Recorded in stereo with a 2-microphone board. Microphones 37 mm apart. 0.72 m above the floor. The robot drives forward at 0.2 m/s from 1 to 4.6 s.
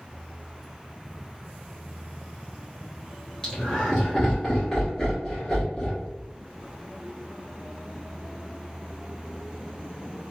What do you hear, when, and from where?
3.4 s laughter: 20° left (ahead or behind), 1.0 m; by 6.1 s 15° left (ahead or behind), 1.2 m